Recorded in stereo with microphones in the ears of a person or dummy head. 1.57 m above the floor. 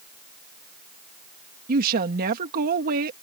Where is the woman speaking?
50° right (ahead or behind).